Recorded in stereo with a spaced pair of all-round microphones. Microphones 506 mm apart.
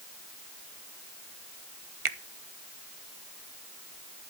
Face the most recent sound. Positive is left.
turn(degrees=-80)